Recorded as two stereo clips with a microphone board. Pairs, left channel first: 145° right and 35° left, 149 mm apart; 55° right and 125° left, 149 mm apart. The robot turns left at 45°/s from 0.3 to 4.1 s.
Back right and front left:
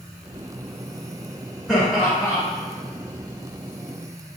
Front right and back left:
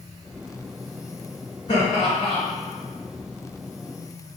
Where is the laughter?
65° right, 1.9 m; by 2.4 s 95° right, 1.9 m.